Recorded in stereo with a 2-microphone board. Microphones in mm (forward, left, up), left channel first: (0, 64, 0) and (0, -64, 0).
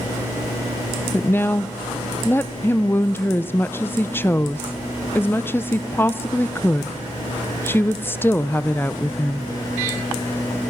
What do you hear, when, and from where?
1.1 s a woman speaking: 15° left (ahead or behind), 0.6 m